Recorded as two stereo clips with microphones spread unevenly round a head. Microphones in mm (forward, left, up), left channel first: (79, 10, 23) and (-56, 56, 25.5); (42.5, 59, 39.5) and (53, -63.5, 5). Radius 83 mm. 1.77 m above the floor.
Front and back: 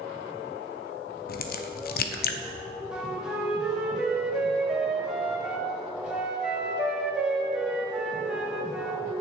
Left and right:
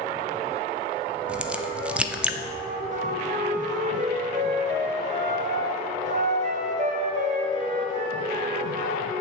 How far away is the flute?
About 1.4 m.